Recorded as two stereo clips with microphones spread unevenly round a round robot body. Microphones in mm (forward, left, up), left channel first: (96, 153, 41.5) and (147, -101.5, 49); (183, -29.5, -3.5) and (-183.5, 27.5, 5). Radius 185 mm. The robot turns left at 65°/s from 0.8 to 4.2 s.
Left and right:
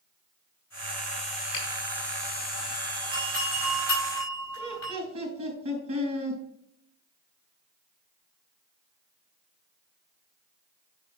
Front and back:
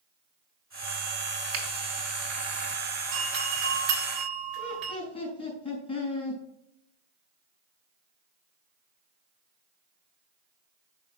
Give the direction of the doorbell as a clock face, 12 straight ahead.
4 o'clock.